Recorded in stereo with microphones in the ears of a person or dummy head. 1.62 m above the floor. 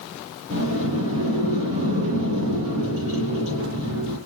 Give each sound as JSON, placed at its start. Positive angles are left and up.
{"t": 0.5, "sound": "a sliding door", "side_deg": -75, "distance_m": 9.0}